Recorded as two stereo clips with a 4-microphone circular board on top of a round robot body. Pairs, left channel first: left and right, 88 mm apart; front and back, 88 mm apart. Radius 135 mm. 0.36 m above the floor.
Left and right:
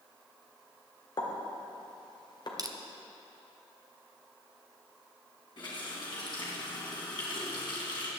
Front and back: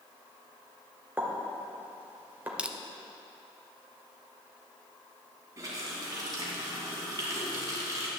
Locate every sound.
1.2 s a pop: 115° left, 2 m
2.6 s crushing: 105° right, 0.9 m
5.6 s a running tap: 125° left, 2.5 m